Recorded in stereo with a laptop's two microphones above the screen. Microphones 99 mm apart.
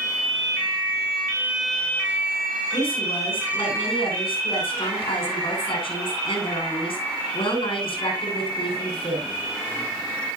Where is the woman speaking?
75° left (ahead or behind), 9 m.